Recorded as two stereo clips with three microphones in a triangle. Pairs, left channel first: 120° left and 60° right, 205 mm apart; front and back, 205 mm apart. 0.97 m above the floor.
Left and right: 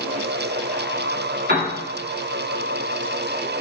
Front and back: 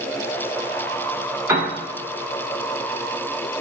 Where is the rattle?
No rattle in this recording.